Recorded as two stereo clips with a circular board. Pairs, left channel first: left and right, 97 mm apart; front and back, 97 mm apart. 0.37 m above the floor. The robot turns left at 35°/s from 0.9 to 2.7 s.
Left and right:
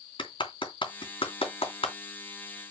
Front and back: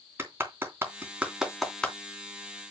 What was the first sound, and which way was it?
A clap, 115° left.